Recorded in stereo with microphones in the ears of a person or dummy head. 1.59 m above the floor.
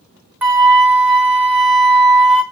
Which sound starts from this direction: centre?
A flute, at 0.4 s.